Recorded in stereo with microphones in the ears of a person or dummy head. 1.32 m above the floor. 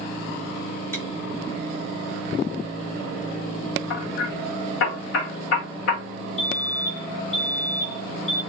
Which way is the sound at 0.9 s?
15° left (ahead or behind).